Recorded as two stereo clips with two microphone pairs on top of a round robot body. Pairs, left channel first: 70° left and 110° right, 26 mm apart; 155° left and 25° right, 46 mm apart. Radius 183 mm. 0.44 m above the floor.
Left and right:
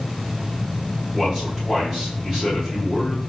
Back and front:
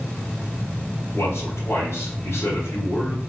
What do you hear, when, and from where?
1.1 s a man speaking: 160° left, 2.5 m